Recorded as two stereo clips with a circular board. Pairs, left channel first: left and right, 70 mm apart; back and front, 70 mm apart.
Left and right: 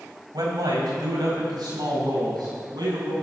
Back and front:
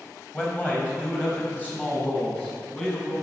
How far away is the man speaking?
About 3 m.